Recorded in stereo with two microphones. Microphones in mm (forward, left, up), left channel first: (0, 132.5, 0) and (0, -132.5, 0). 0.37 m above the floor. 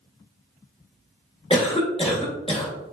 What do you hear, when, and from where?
1.5 s a cough: 25° left (ahead or behind), 0.9 m